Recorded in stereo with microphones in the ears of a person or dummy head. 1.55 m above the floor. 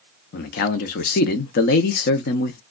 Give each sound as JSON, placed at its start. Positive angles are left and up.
{"t": 0.3, "sound": "a man speaking", "side_deg": 55, "distance_m": 0.7}